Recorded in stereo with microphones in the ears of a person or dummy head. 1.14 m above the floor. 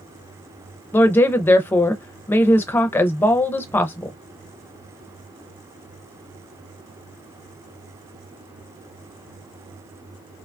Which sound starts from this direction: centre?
A woman speaking, at 0.9 s.